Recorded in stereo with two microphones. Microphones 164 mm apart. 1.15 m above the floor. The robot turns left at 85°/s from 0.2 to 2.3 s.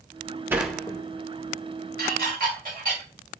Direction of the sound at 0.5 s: 15° right (ahead or behind).